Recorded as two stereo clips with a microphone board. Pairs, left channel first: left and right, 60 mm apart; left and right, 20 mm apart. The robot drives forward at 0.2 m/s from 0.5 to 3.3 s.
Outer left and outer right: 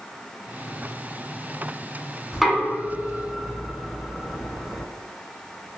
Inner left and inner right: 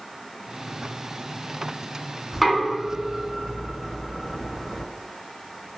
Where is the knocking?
Centre (ahead or behind), 1.2 m.